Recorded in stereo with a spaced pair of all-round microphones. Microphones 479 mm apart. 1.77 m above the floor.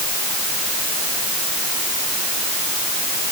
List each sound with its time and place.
Only background noise.